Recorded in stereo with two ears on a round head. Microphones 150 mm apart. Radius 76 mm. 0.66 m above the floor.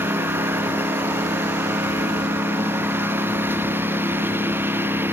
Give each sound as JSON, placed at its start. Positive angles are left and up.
{"t": 0.0, "sound": "a lawn mower", "side_deg": -15}